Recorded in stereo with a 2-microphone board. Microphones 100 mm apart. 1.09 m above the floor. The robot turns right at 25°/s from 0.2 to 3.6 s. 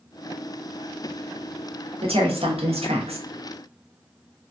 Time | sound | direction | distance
2.0 | a woman speaking | 110° right | 1.1 m